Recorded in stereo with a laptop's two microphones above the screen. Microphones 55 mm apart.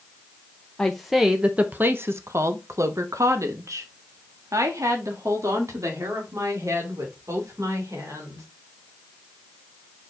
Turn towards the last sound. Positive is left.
turn(degrees=-70)  # may be behind; listen again after turning